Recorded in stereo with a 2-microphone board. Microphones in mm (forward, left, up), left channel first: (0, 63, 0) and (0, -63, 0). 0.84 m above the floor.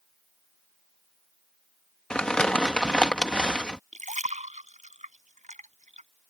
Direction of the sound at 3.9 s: 75° right (ahead or behind).